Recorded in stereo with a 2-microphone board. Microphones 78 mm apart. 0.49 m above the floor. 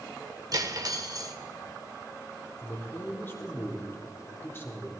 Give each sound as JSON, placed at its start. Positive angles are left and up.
{"t": 0.5, "sound": "cutlery clinking", "side_deg": -50, "distance_m": 0.8}
{"t": 2.6, "sound": "a man speaking", "side_deg": 30, "distance_m": 1.1}